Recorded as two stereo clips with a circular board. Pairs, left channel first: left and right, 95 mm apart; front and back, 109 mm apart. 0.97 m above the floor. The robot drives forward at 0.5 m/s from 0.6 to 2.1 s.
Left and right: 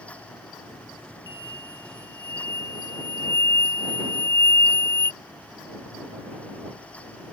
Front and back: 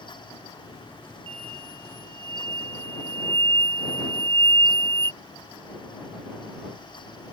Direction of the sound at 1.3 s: 140° left.